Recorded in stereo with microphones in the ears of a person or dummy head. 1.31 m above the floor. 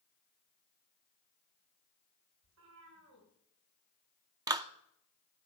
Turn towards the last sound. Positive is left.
turn(degrees=-20)  # may be behind; listen again after turning